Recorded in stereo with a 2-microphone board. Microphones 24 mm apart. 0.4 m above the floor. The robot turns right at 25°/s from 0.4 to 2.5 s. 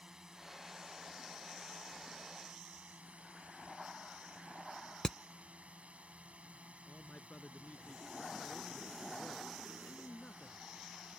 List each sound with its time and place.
0.0 s a drone: 145° right; by 11.2 s 95° right
5.0 s hammering: 25° left (ahead or behind)
6.9 s a man speaking: 60° left (ahead or behind)